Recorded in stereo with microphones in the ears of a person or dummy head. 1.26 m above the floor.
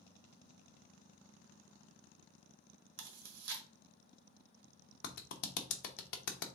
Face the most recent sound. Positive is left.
turn(degrees=65)  # may be behind; listen again after turning